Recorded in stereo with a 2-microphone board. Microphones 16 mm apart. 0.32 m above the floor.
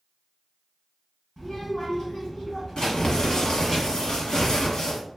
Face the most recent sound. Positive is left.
turn(degrees=70)  # may be behind; listen again after turning